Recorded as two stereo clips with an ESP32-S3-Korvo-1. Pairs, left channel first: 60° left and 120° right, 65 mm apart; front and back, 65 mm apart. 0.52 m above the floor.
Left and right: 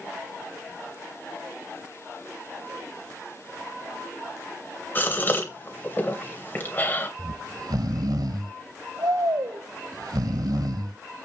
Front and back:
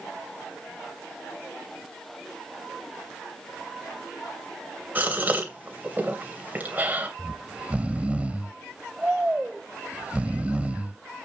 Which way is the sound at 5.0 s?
120° left.